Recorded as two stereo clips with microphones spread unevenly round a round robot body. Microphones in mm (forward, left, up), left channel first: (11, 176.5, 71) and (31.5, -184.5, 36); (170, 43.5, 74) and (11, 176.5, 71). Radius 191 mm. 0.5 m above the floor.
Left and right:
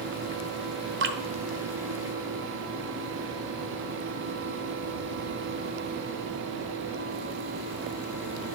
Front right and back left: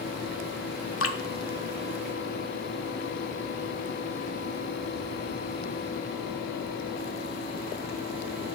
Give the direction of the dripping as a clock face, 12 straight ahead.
1 o'clock.